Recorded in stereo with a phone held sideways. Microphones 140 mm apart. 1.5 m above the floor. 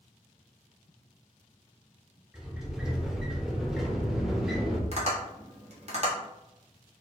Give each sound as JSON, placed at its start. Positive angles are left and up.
{"t": 2.3, "sound": "a sliding door", "side_deg": -5, "distance_m": 0.7}
{"t": 4.9, "sound": "tapping", "side_deg": -50, "distance_m": 1.2}